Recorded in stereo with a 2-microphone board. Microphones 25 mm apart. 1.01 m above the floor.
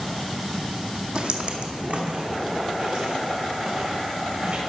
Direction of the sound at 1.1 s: 45° right (ahead or behind).